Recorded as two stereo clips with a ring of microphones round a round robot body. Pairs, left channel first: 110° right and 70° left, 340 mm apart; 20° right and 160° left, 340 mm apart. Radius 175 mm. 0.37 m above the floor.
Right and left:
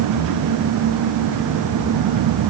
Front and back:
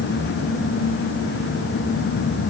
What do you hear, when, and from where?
Only background noise.